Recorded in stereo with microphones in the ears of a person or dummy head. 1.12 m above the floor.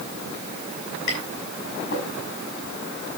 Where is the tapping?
60° left (ahead or behind), 5 m.